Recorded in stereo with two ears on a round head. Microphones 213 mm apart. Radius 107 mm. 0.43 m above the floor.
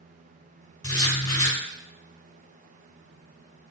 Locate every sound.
0.8 s writing: 15° left (ahead or behind), 2.5 m